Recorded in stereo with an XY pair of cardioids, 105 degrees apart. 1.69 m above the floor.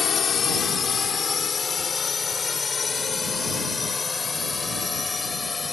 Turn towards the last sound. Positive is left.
turn(degrees=25)